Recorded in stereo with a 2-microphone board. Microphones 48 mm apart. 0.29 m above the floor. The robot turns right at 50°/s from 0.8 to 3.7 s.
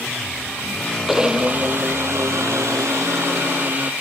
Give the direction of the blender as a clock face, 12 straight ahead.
6 o'clock.